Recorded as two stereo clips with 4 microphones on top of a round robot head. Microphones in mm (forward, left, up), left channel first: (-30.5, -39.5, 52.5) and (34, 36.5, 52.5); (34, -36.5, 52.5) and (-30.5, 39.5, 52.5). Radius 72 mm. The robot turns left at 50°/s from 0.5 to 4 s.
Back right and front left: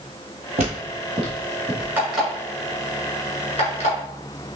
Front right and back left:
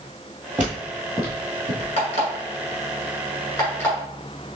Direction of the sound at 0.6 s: 55° left.